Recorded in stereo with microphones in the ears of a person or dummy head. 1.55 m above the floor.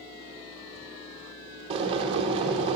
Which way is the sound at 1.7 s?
30° right (ahead or behind).